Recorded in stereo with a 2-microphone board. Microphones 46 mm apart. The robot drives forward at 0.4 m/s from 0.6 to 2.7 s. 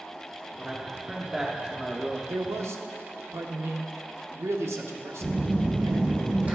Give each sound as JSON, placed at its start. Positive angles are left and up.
{"t": 0.6, "sound": "a man speaking", "side_deg": -10, "distance_m": 1.2}
{"t": 2.3, "sound": "a man speaking", "side_deg": -90, "distance_m": 0.7}
{"t": 5.2, "sound": "a phone buzzing", "side_deg": -30, "distance_m": 0.8}